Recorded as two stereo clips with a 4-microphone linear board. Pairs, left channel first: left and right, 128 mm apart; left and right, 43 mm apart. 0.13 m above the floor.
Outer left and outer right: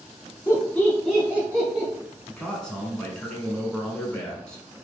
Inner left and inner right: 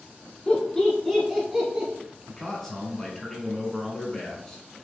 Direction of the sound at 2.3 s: 5° left (ahead or behind).